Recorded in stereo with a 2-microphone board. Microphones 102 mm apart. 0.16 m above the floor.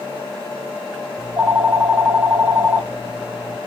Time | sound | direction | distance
1.2 | a phone ringing | 15° right (ahead or behind) | 0.6 m